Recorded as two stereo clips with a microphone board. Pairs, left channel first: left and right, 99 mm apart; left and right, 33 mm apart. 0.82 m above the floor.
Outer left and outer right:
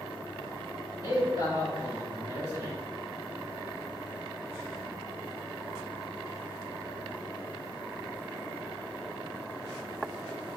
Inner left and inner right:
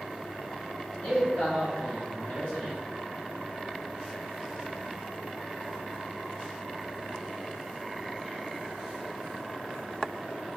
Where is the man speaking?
40° left (ahead or behind), 1.8 m; by 2.8 s 30° left (ahead or behind), 3 m.